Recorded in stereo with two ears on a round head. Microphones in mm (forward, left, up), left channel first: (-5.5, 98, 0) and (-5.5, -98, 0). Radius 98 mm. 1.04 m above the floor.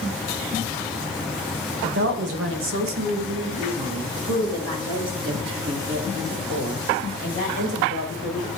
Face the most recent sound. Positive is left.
turn(degrees=-65)  # may be behind; listen again after turning